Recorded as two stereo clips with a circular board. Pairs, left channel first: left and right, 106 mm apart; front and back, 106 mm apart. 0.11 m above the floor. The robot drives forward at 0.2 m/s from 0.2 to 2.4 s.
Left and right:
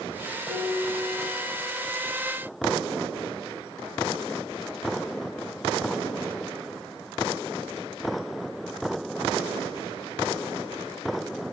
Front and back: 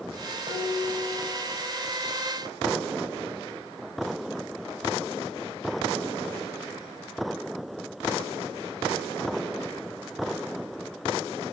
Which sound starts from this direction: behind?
Dishes clattering, at 0.5 s.